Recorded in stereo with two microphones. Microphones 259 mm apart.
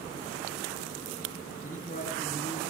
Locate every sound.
1.6 s a man speaking: 30° left (ahead or behind), 6.5 m